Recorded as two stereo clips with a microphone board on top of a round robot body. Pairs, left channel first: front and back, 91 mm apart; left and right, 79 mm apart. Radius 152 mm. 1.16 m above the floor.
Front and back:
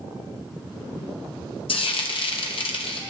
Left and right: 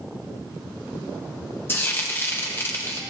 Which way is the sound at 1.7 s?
25° left.